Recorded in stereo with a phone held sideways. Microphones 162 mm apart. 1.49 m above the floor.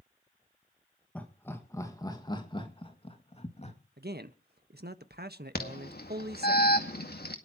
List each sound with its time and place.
1.1 s laughter: 10° left (ahead or behind), 1.7 m; by 3.8 s 40° left (ahead or behind), 2.5 m
4.0 s a man speaking: 75° right (ahead or behind), 1.4 m
5.5 s an alarm: 75° left (ahead or behind), 2 m